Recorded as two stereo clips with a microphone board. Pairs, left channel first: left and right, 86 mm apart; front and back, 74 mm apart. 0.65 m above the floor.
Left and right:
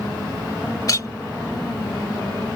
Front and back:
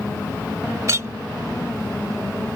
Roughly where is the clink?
Behind left.